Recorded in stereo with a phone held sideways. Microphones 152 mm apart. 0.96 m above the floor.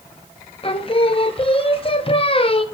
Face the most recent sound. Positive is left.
turn(degrees=40)  # may be behind; listen again after turning